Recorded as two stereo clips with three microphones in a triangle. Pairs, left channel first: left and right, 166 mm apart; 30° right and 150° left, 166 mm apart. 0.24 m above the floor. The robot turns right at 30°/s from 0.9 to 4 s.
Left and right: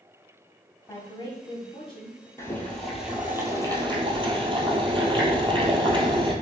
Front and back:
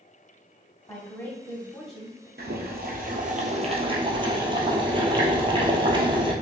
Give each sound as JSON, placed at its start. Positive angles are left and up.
{"t": 0.9, "sound": "a woman speaking", "azimuth_deg": 25, "distance_m": 1.4}
{"t": 2.4, "sound": "boiling", "azimuth_deg": 165, "distance_m": 1.0}